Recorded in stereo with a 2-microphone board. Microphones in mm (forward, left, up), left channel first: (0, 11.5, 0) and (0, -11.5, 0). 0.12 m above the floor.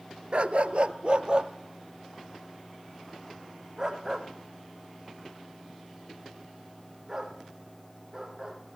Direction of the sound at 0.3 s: 55° right (ahead or behind).